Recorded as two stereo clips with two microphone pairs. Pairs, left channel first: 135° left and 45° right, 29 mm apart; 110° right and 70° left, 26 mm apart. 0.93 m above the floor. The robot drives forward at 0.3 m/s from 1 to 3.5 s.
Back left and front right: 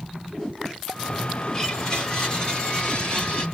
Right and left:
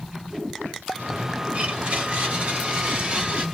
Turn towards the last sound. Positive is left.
turn(degrees=100)